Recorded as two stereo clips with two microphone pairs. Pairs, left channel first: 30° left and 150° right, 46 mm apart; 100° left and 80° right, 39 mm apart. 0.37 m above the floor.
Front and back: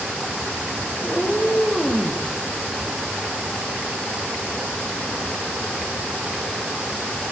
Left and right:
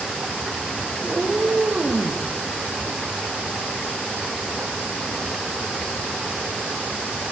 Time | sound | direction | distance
1.0 | a cat meowing | 30° right | 5.5 m